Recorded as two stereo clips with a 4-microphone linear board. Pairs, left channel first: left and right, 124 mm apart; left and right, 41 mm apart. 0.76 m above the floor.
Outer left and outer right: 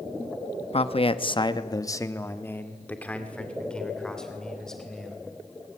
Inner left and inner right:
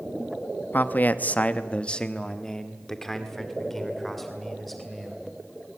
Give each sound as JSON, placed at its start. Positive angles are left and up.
{"t": 0.7, "sound": "a man speaking", "side_deg": 50, "distance_m": 0.9}